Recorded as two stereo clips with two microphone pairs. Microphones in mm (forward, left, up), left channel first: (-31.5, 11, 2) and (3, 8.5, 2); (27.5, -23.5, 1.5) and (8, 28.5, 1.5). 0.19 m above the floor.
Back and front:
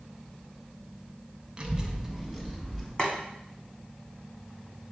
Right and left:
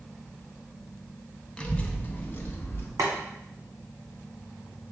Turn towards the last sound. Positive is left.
turn(degrees=110)